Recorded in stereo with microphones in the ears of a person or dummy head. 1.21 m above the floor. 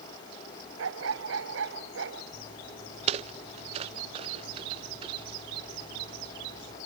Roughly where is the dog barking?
Right.